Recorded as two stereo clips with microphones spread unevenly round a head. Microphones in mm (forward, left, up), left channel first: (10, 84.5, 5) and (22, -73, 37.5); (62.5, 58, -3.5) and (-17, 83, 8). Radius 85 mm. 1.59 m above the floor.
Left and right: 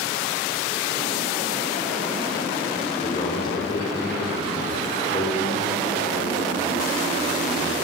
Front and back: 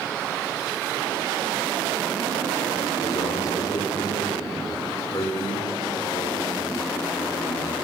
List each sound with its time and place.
3.0 s a man speaking: 30° left, 5.5 m